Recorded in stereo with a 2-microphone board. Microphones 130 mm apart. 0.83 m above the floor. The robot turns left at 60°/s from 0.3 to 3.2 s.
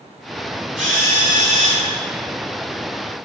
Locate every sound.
0.8 s a drill: 175° right, 5.5 m; by 1.9 s 115° left, 5.5 m